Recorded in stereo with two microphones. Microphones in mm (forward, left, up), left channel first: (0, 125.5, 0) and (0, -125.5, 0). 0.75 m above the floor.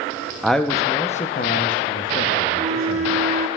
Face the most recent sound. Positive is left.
turn(degrees=-25)  # may be behind; listen again after turning